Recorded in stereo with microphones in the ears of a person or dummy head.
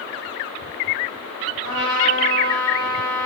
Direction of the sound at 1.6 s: 25° right (ahead or behind).